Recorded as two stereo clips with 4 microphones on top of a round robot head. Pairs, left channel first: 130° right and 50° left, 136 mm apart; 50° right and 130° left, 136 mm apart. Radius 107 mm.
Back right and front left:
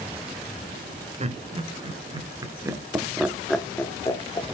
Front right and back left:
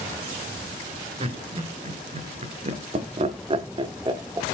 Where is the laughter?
85° left, 2.5 m; by 4.5 s 175° right, 1.7 m.